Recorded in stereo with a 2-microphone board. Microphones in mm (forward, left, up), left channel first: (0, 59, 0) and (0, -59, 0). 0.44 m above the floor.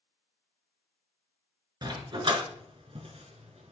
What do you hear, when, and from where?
1.8 s a dog barking: 40° right (ahead or behind), 2 m; by 3.7 s 70° right (ahead or behind), 1.9 m